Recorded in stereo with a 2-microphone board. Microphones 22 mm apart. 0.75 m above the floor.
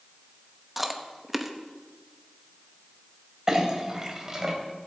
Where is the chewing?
5° right (ahead or behind), 1.0 m.